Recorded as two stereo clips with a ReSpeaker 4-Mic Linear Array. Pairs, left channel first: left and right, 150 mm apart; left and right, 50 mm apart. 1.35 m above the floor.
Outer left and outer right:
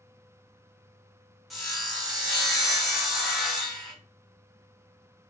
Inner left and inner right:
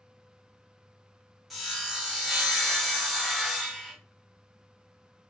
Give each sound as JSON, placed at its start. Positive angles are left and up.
{"t": 1.5, "sound": "sawing", "side_deg": 0, "distance_m": 1.1}